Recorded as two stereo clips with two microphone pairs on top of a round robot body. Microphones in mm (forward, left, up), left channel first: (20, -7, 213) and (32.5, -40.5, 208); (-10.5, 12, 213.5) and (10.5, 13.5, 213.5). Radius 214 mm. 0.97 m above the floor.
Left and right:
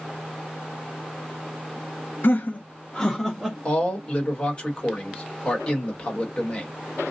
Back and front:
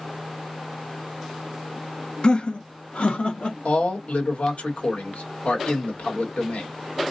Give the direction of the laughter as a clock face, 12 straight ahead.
8 o'clock.